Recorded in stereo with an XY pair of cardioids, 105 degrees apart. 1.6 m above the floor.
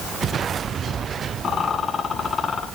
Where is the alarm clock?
No alarm clock in this recording.